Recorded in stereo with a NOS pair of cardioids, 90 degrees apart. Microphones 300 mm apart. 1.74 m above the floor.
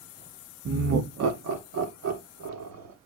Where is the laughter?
45° right, 0.8 m; by 2.9 s 65° right, 2 m.